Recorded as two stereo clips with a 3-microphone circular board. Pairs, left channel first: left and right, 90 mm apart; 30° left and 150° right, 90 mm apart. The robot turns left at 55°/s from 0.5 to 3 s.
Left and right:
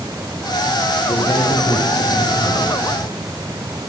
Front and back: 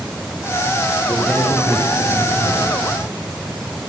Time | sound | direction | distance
1.1 | a man speaking | 115° left | 5 m